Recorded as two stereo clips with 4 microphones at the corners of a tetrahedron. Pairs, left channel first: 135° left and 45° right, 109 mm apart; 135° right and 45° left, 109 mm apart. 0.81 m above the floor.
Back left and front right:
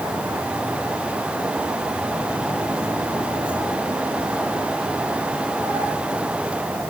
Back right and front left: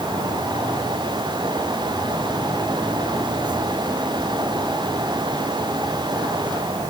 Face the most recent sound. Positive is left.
No sound to turn to.